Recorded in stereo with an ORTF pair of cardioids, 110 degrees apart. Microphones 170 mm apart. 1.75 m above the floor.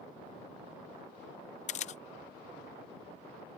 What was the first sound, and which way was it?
A camera shutter, 40° left.